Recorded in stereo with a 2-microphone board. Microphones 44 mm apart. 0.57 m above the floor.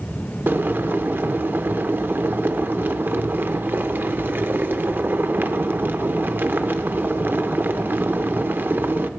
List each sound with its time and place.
0.5 s boiling: 50° right (ahead or behind), 0.5 m